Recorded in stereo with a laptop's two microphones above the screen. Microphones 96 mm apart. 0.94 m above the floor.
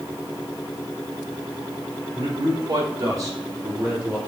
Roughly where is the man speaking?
Right.